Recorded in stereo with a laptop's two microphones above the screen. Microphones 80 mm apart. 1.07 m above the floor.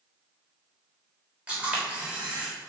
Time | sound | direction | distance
1.5 | a camera shutter | 15° right (ahead or behind) | 3 m